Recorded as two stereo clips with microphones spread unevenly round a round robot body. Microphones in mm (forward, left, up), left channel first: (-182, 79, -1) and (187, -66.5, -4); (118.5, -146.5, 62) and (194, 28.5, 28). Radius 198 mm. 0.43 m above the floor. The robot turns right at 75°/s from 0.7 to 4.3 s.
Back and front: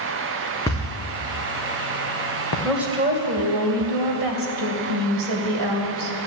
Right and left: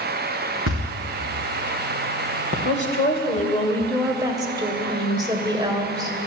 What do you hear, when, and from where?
0.7 s a thud: 75° left, 3 m; by 2.5 s 145° right, 3 m
2.6 s a woman speaking: 120° right, 2.5 m; by 6.2 s 5° left, 2.5 m